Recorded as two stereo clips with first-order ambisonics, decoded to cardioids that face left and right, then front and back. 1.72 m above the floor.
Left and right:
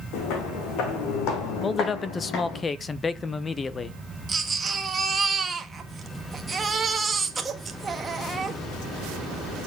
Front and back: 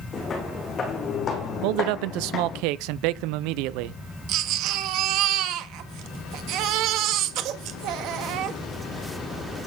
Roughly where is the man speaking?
Behind.